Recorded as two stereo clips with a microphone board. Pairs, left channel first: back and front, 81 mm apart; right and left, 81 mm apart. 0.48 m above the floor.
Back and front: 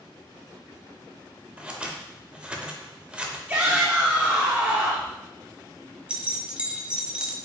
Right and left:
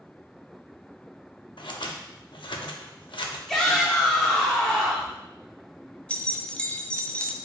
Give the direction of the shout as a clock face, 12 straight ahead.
1 o'clock.